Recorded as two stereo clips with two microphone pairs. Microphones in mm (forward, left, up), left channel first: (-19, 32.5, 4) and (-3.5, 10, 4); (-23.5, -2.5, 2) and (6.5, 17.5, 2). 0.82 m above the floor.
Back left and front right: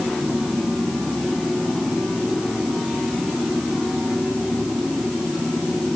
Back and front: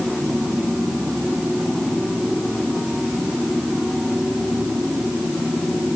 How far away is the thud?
No thud in this recording.